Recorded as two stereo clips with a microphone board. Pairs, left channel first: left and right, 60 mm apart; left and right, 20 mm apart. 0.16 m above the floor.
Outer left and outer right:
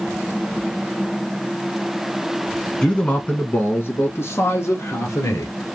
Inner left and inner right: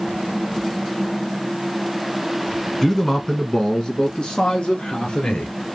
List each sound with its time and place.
2.8 s a man speaking: 15° left (ahead or behind), 1.1 m; by 5.5 s 60° left (ahead or behind), 2 m